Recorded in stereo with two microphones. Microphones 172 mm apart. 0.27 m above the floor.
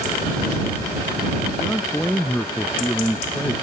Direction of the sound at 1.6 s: 10° left (ahead or behind).